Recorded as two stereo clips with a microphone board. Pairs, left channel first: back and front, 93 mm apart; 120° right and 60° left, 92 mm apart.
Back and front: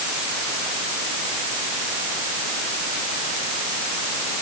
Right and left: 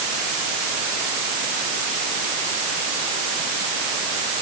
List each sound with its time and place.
Only background noise.